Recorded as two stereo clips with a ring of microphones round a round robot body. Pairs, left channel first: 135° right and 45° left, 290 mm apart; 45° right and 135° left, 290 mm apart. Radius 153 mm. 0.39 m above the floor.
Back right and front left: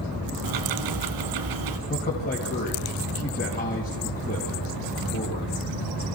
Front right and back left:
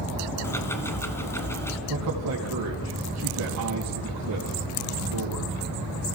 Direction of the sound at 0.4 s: 35° left.